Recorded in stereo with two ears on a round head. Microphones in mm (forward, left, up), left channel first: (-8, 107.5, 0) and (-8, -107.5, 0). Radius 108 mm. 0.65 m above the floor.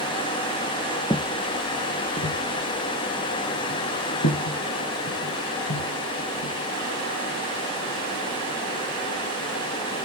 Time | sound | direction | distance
1.1 | footsteps | 15° left (ahead or behind) | 0.6 m